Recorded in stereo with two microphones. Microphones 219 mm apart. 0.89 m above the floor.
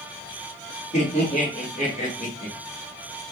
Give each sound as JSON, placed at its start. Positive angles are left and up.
{"t": 0.9, "sound": "laughter", "side_deg": 30, "distance_m": 2.0}